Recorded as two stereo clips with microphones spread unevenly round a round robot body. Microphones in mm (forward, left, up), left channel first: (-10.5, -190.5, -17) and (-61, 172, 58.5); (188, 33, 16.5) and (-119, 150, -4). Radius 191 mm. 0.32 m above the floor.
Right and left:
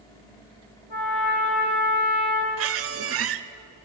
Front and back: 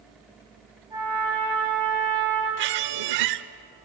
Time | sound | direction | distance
0.9 | a trumpet | 115° right | 7 m
2.6 | a squeak | 150° left | 0.7 m